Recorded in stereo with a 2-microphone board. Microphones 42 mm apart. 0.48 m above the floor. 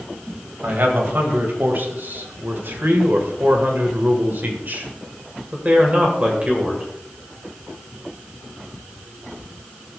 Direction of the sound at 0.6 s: 50° right (ahead or behind).